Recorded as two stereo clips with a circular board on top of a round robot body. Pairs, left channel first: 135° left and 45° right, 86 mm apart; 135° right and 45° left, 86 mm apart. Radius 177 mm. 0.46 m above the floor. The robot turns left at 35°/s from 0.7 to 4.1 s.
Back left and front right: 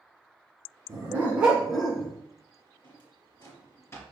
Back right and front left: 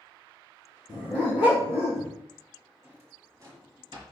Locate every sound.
0.9 s a dog barking: 105° right, 2 m; by 2.1 s 145° right, 2 m
2.8 s a drawer: 115° left, 3 m; by 4.0 s 75° left, 3 m